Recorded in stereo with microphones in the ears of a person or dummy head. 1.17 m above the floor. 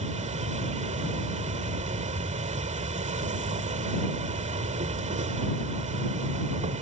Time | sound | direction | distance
0.0 | an insect | 40° right (ahead or behind) | ?